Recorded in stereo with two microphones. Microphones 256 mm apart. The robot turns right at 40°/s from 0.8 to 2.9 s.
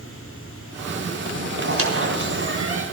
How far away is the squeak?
About 2.5 m.